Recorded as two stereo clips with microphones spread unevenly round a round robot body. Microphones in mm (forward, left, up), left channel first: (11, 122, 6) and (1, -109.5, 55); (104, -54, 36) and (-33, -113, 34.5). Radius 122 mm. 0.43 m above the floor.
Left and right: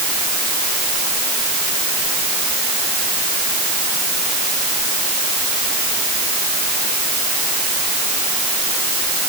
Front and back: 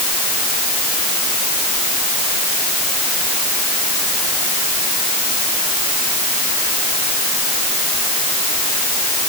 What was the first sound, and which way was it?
Only background noise.